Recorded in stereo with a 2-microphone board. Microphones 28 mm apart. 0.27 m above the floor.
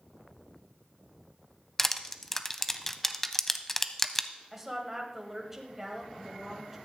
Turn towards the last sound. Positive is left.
turn(degrees=-15)  # may be behind; listen again after turning